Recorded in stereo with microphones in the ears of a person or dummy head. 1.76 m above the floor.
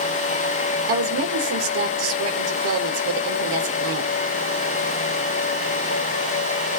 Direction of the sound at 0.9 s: 85° right.